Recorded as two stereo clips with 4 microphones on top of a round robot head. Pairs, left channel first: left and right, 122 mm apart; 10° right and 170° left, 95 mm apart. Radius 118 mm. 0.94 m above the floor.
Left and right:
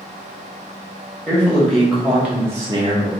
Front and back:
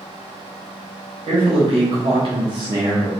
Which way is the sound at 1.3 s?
170° left.